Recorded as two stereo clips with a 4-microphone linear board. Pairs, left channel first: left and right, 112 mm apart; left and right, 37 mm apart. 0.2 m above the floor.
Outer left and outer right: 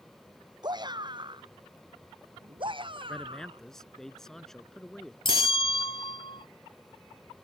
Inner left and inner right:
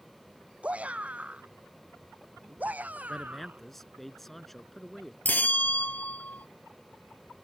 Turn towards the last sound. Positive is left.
turn(degrees=50)  # may be behind; listen again after turning